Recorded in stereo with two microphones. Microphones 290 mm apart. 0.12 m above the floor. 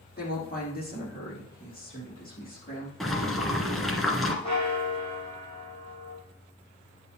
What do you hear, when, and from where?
0.2 s a woman speaking: 30° left (ahead or behind), 4.5 m
3.0 s boiling: centre (ahead or behind), 1.5 m
4.4 s a bell: 20° left (ahead or behind), 5 m